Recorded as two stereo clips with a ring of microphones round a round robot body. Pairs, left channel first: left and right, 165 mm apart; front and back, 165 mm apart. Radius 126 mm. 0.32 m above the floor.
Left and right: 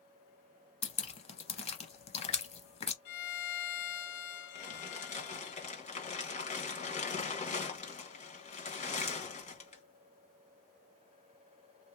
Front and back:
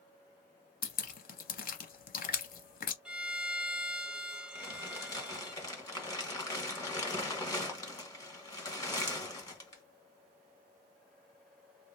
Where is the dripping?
35° left, 0.7 m.